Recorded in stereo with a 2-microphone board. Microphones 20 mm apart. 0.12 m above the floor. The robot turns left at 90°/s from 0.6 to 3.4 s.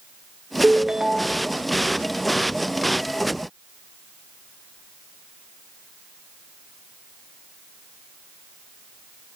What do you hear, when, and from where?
0.6 s a ringtone: 85° right, 0.6 m; by 1.5 s 160° right, 0.6 m